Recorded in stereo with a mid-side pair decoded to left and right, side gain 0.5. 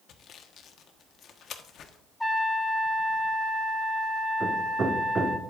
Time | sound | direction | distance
0.1 | sawing | 60° left | 1.2 m
2.2 | a trumpet | 5° left | 1.8 m
4.4 | hammering | 35° right | 1.7 m